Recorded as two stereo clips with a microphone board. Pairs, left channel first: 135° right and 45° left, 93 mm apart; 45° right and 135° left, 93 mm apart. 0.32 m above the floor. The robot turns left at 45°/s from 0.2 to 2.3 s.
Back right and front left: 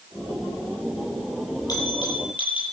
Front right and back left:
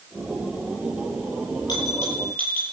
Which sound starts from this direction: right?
A bell, at 1.7 s.